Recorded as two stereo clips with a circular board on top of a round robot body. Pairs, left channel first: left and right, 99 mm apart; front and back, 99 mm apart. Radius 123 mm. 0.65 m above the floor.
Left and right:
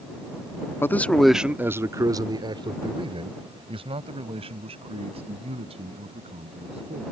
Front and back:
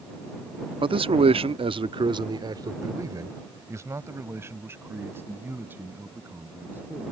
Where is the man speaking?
155° left; by 7.0 s 110° right.